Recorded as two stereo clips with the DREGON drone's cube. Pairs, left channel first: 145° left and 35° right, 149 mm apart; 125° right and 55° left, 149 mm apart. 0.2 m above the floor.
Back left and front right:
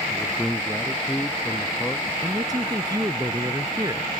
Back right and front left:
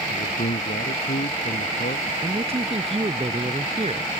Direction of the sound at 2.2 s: 25° left.